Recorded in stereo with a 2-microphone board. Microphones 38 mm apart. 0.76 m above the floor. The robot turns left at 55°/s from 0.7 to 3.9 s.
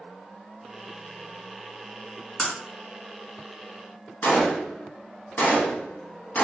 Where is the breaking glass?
5° right (ahead or behind), 1.3 m; by 2.5 s centre (ahead or behind), 1.3 m.